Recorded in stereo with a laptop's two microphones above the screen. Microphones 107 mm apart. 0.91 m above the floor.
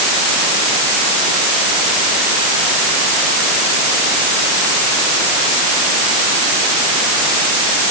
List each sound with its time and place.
Only background noise.